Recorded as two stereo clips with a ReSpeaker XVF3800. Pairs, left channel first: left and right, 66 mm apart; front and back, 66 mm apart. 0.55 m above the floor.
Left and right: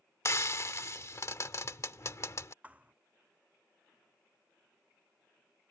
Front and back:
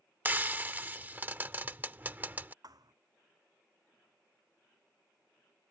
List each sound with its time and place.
0.2 s frying: 120° left
2.6 s a thud: 160° right